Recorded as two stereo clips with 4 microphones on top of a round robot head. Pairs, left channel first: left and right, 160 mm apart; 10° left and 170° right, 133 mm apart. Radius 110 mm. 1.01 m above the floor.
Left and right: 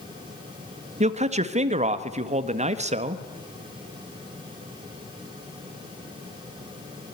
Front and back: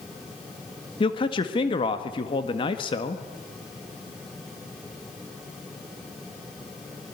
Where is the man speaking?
45° right, 1.7 m.